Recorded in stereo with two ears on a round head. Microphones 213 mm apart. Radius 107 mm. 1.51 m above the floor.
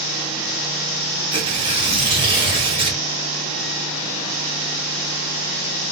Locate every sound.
1.3 s tearing paper: 25° right (ahead or behind), 1.9 m